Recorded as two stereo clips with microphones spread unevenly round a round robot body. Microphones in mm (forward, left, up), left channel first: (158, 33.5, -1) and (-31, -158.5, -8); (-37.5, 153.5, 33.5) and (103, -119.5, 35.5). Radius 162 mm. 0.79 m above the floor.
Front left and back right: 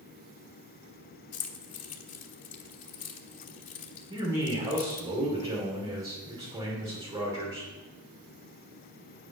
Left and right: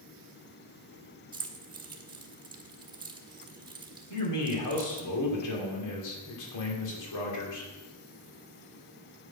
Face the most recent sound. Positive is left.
turn(degrees=145)